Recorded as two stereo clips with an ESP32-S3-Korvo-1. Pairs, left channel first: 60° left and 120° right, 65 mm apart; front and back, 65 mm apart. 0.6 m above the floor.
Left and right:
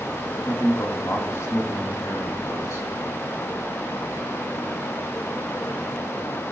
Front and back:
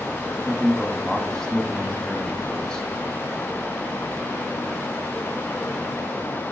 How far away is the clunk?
No clunk in this recording.